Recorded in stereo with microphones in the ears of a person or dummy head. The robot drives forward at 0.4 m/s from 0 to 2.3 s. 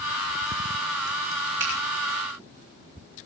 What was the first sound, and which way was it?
A finger snap, 45° right (ahead or behind).